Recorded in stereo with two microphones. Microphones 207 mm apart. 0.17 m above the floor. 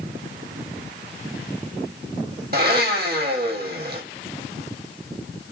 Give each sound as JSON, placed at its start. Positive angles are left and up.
{"t": 2.5, "sound": "a blender", "side_deg": -50, "distance_m": 1.1}